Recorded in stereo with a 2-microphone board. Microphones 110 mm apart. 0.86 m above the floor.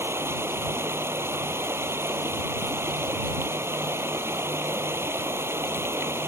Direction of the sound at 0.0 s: 20° right (ahead or behind).